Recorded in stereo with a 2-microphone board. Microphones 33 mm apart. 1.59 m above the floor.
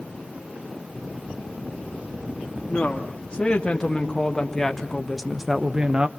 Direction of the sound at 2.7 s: 30° left (ahead or behind).